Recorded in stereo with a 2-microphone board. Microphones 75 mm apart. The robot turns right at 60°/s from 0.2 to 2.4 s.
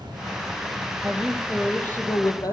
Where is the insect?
110° right, 7 m; by 2.5 s 20° left, 7 m.